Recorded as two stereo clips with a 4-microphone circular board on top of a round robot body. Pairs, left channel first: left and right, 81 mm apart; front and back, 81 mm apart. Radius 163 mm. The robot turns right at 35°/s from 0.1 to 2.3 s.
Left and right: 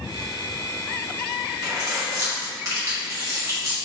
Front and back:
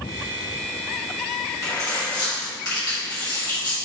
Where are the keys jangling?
60° right, 1.9 m; by 3.8 s 35° right, 1.9 m.